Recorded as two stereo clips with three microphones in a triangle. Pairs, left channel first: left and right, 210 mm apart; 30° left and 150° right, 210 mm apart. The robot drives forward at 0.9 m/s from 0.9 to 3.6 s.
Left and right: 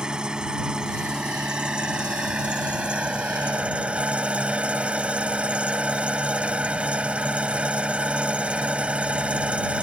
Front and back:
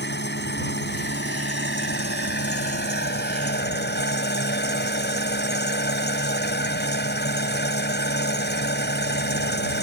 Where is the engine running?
5° right.